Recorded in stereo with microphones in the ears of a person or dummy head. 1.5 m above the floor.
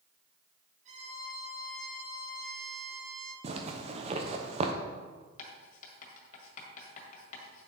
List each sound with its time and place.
0.8 s a violin: 45° right (ahead or behind), 2.0 m
3.4 s a zipper: 30° right (ahead or behind), 0.8 m
5.4 s writing: 45° left (ahead or behind), 1.8 m